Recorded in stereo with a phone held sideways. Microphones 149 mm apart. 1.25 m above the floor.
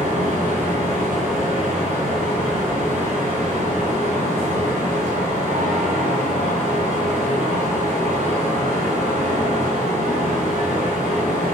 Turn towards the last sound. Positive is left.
turn(degrees=-55)  # may be behind; listen again after turning